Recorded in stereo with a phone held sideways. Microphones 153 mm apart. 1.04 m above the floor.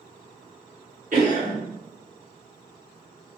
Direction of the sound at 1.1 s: 55° right (ahead or behind).